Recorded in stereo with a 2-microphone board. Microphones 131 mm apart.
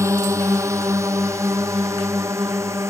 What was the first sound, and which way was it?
A drone, 20° right (ahead or behind).